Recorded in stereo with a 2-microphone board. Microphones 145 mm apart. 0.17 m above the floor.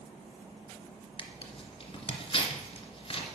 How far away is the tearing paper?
About 1.2 m.